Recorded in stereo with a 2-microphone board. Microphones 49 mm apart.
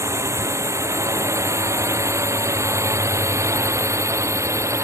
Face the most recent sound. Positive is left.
turn(degrees=-75)  # may be behind; listen again after turning